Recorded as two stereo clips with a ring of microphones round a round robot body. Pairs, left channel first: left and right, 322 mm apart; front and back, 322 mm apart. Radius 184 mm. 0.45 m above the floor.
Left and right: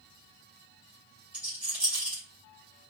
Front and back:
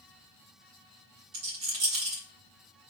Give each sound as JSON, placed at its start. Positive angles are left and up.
{"t": 1.3, "sound": "a rattle", "azimuth_deg": -175, "distance_m": 2.0}